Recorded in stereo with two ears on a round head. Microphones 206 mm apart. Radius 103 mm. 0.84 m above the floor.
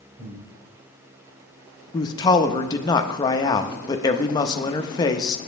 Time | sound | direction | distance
0.2 | breathing | 35° right (ahead or behind) | 3 m
1.9 | a man speaking | 20° left (ahead or behind) | 0.7 m